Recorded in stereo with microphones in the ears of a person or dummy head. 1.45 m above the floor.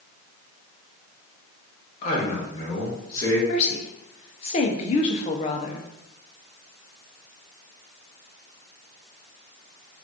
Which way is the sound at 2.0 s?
40° left (ahead or behind).